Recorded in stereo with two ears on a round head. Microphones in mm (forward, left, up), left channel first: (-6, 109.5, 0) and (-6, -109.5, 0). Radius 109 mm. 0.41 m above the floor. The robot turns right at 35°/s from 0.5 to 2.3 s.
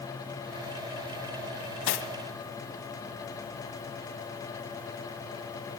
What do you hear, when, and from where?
1.9 s cutlery clinking: 55° left (ahead or behind), 2 m; by 2.1 s 50° left (ahead or behind), 2 m